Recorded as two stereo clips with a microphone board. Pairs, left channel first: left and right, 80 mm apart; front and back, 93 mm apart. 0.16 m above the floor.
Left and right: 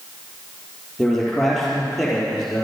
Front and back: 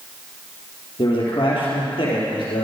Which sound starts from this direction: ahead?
A man speaking, at 1.0 s.